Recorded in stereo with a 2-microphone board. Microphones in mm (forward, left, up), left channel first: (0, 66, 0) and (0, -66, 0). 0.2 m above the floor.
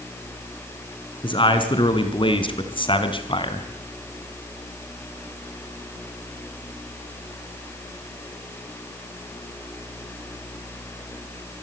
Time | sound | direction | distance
1.2 | a man speaking | 35° left (ahead or behind) | 2.5 m